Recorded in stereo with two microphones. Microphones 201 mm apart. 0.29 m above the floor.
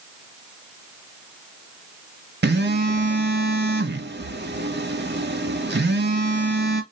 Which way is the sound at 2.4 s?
60° right (ahead or behind).